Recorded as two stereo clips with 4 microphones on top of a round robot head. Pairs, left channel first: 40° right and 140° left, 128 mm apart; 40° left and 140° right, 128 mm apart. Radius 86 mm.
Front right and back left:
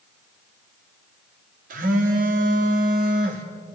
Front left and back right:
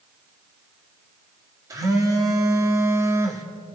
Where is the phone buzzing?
155° left, 2.5 m.